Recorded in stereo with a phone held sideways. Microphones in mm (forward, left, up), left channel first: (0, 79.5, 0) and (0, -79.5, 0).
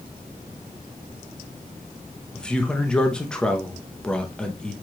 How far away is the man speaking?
About 0.9 m.